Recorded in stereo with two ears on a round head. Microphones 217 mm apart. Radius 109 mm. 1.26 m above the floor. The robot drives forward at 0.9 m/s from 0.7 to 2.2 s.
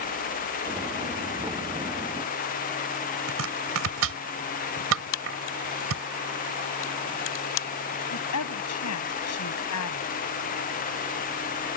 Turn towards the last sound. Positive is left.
turn(degrees=75)  # may be behind; listen again after turning